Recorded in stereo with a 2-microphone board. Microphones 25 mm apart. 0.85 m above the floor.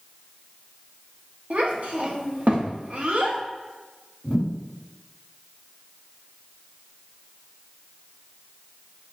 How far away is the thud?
About 2.0 m.